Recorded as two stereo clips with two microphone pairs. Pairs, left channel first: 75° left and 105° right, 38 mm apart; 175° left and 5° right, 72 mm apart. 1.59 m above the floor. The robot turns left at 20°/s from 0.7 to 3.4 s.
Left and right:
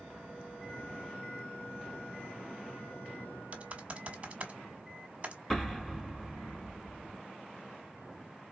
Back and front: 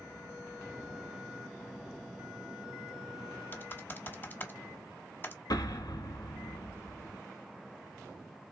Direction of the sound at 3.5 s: 135° right.